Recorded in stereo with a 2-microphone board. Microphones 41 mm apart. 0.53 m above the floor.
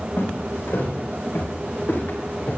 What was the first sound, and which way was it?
Footsteps, 75° left (ahead or behind).